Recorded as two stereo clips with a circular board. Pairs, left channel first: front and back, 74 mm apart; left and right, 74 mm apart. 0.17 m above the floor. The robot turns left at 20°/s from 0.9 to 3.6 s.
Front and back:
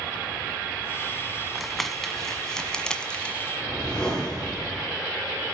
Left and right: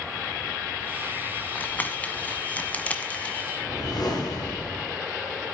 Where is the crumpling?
85° left, 1.5 m; by 3.5 s 45° left, 1.5 m.